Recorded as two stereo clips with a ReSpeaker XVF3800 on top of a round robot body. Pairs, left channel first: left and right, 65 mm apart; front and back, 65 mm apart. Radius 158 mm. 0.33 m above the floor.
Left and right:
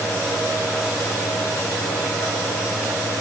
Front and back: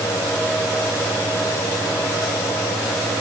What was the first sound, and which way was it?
Only background noise.